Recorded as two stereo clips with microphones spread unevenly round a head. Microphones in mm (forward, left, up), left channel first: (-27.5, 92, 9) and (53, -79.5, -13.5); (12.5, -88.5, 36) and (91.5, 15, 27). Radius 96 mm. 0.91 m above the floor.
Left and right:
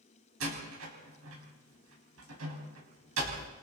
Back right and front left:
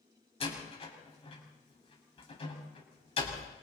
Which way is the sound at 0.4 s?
85° right.